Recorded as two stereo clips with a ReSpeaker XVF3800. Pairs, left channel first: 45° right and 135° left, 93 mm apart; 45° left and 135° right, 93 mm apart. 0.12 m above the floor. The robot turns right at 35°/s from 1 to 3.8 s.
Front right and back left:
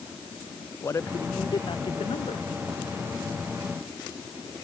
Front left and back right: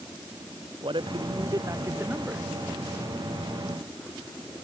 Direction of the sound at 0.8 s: 105° right.